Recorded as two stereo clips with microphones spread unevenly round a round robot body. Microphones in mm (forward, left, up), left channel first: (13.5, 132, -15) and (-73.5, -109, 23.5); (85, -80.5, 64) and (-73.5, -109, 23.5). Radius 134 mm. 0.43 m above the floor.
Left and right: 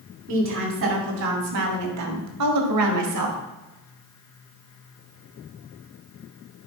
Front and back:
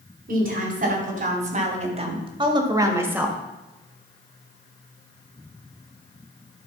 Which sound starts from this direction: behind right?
A woman speaking, at 0.3 s.